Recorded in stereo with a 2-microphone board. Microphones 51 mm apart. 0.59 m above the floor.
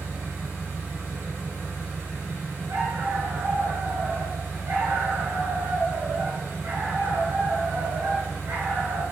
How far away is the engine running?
About 1.4 m.